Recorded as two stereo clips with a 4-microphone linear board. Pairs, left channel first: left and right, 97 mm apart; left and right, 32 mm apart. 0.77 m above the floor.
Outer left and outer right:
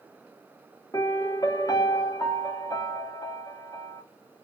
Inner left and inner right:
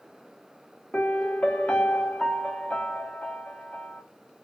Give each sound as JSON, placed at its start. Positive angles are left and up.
{"t": 0.9, "sound": "a piano", "side_deg": 35, "distance_m": 0.6}